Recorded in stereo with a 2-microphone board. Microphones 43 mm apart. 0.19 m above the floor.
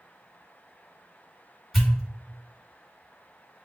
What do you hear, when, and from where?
1.7 s a pop: centre (ahead or behind), 1.8 m